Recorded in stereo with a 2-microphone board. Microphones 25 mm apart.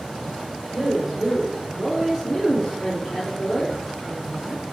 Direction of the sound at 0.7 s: 15° right (ahead or behind).